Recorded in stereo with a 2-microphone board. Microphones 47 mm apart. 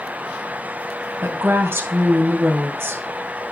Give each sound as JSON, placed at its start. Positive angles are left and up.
{"t": 1.2, "sound": "a woman speaking", "side_deg": -60, "distance_m": 2.5}